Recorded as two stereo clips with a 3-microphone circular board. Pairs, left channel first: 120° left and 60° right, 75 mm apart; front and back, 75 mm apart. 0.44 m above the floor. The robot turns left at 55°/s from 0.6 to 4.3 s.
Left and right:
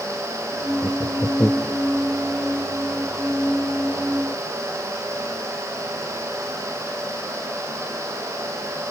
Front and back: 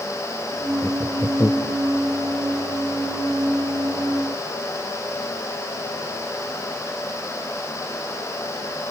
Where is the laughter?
90° left; by 1.8 s 35° left.